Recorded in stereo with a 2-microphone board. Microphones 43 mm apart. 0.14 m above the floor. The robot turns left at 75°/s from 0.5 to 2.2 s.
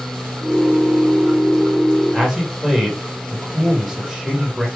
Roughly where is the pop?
No pop in this recording.